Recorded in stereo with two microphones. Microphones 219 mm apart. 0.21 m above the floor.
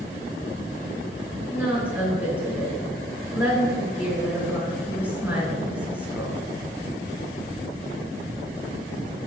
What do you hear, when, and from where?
1.5 s a woman speaking: 5° right (ahead or behind), 2.5 m